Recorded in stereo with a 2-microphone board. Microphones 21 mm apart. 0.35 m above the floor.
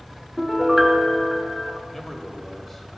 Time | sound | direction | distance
0.4 | a piano | centre (ahead or behind) | 1.1 m
1.9 | a man speaking | 15° left (ahead or behind) | 1.4 m